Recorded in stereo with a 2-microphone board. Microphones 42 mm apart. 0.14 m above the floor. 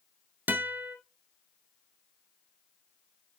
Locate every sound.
0.5 s a guitar: 50° right (ahead or behind), 1.2 m